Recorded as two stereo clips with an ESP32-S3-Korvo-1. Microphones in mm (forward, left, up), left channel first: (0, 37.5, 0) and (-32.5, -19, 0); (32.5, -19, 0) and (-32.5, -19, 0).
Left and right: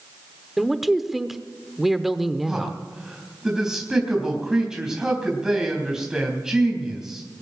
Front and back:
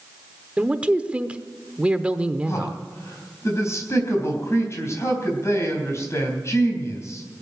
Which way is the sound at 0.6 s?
160° left.